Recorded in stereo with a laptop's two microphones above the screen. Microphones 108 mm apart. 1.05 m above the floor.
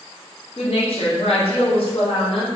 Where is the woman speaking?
65° left (ahead or behind), 0.6 m.